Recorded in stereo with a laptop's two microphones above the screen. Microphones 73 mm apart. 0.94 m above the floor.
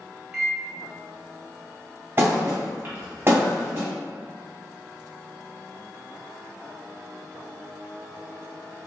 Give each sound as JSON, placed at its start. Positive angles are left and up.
{"t": 0.3, "sound": "a microwave", "side_deg": -10, "distance_m": 1.2}
{"t": 2.2, "sound": "a thud", "side_deg": -35, "distance_m": 1.2}